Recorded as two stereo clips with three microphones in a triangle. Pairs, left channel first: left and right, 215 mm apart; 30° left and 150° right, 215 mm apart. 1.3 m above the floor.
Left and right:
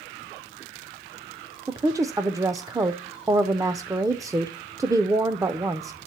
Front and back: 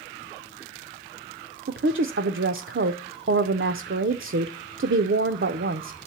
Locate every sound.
1.7 s a woman speaking: 165° right, 0.5 m